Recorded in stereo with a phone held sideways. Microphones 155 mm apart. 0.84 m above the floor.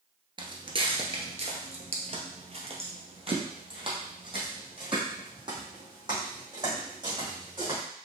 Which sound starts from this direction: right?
Footsteps, at 0.4 s.